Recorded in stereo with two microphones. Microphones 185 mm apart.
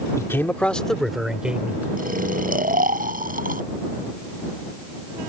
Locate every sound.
0.2 s a man speaking: 15° left (ahead or behind); by 1.9 s 10° right (ahead or behind)
2.0 s snoring: 55° right (ahead or behind)